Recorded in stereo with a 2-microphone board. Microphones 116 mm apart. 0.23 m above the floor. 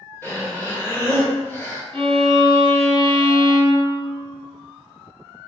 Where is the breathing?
20° left (ahead or behind), 1.2 m.